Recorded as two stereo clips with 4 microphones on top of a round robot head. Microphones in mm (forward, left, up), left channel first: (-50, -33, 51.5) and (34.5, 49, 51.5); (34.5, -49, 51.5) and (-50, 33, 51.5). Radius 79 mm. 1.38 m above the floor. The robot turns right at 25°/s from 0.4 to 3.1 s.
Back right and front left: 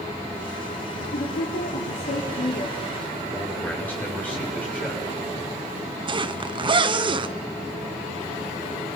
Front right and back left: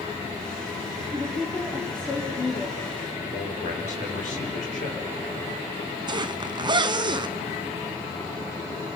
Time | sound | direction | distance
1.1 | a woman speaking | 145° right | 3 m
3.3 | a man speaking | 60° right | 7 m
6.1 | a zipper | 85° left | 0.9 m